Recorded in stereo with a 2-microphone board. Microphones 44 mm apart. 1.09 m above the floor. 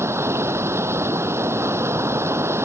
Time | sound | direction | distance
0.0 | running water | 80° right | ?